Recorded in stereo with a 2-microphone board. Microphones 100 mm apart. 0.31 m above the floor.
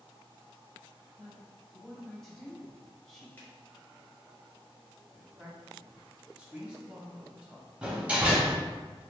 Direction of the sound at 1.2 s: 5° left (ahead or behind).